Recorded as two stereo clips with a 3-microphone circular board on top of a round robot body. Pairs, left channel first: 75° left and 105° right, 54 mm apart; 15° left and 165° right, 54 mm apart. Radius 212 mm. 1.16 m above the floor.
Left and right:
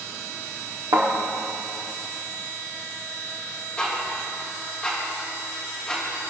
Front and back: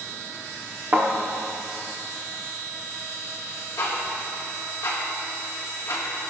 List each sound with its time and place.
0.9 s a thud: 110° right, 1.0 m
3.8 s ticking: 5° left, 3 m